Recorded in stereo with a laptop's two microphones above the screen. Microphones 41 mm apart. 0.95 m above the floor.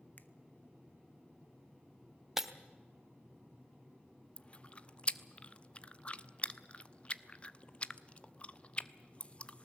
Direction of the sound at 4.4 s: 30° left (ahead or behind).